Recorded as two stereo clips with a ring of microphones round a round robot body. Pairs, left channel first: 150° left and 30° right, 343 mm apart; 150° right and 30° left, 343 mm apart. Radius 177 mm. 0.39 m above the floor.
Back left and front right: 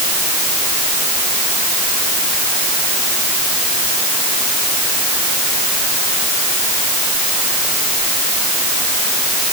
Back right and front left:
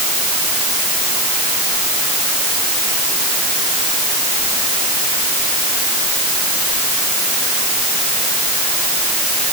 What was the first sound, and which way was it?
Only background noise.